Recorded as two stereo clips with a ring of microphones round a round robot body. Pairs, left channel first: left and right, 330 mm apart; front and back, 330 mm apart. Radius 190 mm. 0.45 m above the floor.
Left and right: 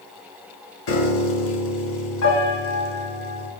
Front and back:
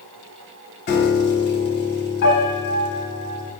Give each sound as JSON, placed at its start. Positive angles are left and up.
{"t": 0.9, "sound": "a piano", "azimuth_deg": 50, "distance_m": 1.1}